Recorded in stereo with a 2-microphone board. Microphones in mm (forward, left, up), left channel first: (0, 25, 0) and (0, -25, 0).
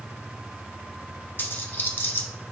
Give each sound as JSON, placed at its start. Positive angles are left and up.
{"t": 1.4, "sound": "a dropped coin", "side_deg": 45, "distance_m": 0.9}